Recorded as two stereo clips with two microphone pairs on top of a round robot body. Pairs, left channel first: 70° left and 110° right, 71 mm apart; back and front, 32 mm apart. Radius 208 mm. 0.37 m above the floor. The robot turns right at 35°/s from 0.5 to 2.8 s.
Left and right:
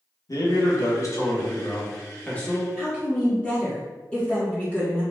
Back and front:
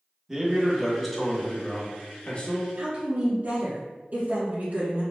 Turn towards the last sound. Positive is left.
turn(degrees=-5)